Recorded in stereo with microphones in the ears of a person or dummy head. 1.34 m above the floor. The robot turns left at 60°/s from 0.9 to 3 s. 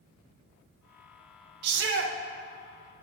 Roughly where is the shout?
Right.